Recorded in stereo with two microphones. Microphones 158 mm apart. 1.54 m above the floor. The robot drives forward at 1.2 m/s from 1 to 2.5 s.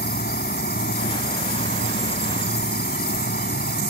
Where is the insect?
85° left; by 3.9 s 90° left.